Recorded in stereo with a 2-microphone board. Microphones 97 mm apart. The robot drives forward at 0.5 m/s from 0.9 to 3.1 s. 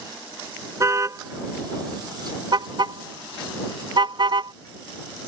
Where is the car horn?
35° right (ahead or behind); by 4.5 s 55° right (ahead or behind).